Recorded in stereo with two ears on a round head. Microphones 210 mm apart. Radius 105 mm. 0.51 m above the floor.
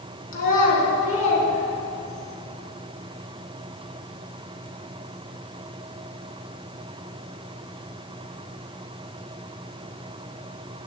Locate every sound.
0.3 s a child speaking: 40° left (ahead or behind), 3 m; by 2.3 s 20° left (ahead or behind), 4 m